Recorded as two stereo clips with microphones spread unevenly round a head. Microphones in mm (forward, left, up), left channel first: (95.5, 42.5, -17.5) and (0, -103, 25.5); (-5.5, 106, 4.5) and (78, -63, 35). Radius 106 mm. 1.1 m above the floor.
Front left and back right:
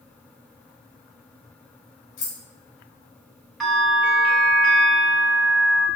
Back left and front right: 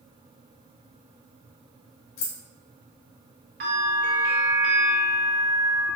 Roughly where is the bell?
Ahead right.